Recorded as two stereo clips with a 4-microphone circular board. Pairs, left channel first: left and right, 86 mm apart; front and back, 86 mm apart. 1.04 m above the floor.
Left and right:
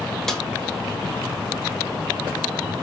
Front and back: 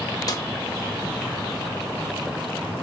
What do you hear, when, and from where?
0.3 s a snare drum: 5° left, 0.8 m